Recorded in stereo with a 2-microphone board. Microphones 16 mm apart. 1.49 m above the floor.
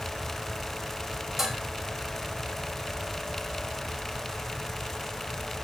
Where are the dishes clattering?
25° right (ahead or behind), 6 m.